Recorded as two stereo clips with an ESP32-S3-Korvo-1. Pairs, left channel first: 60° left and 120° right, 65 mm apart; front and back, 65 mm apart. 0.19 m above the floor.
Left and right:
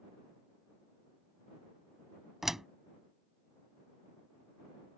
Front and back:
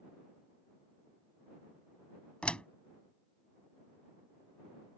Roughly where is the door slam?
Ahead right.